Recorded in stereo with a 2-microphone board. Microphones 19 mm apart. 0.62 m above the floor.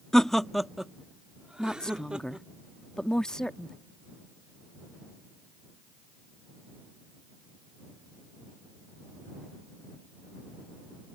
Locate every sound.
0.1 s laughter: 25° left (ahead or behind); by 2.5 s 70° right (ahead or behind)
1.6 s a woman speaking: 40° left (ahead or behind)